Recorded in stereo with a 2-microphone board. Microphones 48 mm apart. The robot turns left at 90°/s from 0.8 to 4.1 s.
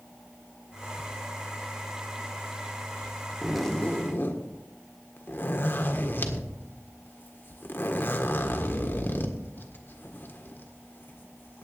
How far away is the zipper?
About 1.5 m.